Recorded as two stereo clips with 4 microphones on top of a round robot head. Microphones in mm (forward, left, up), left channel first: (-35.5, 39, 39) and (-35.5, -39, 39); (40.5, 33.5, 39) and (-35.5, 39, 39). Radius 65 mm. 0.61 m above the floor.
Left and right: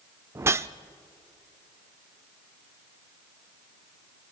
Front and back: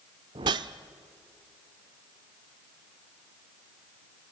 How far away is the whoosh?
About 0.6 m.